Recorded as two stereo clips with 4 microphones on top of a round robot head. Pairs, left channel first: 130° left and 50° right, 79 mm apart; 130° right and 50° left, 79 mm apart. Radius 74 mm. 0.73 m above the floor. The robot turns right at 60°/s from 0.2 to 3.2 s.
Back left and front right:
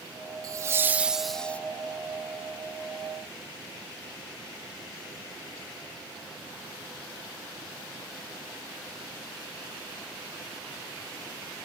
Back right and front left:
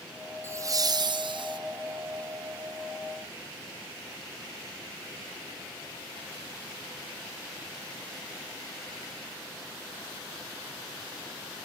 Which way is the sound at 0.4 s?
10° right.